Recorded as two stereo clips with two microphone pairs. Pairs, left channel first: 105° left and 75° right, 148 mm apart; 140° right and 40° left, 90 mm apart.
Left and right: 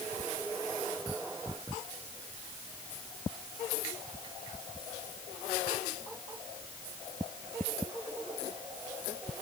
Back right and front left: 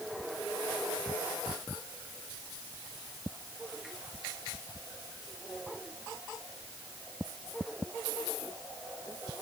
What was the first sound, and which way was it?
Only background noise.